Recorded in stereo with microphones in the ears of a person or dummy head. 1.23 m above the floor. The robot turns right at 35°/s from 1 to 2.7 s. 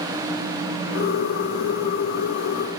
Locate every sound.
Only background noise.